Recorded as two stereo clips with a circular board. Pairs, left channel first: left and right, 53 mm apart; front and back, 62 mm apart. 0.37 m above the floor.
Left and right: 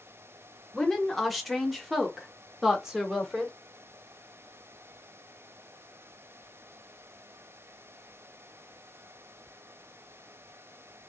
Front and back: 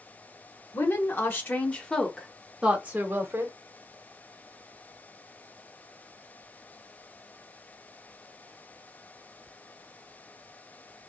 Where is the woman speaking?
5° left, 1.2 m; by 3.6 s 165° right, 1.1 m.